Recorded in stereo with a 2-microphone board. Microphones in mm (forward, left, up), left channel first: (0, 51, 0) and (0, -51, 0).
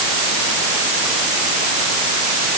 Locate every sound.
Only background noise.